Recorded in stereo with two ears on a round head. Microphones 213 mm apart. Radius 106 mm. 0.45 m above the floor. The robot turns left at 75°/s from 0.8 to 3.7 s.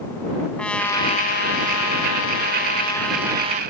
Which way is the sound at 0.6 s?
175° left.